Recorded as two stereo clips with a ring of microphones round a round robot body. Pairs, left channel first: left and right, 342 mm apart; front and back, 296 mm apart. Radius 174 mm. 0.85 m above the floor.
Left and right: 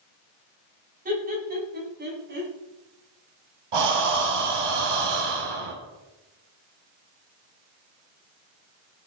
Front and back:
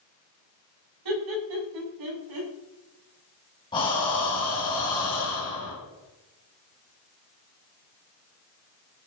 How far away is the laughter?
About 7 m.